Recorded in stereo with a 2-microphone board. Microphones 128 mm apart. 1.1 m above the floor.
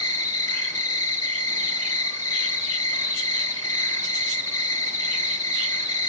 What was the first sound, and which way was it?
An insect, 20° left (ahead or behind).